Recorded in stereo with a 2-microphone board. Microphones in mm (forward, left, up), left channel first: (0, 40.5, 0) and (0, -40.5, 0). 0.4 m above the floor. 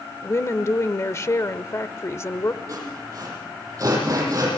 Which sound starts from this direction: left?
A woman speaking, at 0.2 s.